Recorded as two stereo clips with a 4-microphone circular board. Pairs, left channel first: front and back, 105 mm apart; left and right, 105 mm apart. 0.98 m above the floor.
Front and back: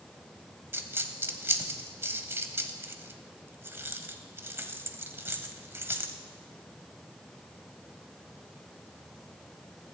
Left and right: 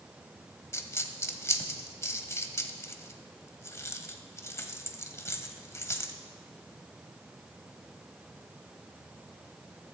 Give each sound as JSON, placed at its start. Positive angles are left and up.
{"t": 0.7, "sound": "a dropped coin", "azimuth_deg": 130, "distance_m": 0.9}